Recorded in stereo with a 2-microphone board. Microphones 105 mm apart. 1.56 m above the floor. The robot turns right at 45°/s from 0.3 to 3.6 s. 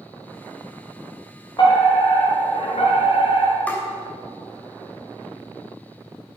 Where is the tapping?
15° left (ahead or behind), 3 m.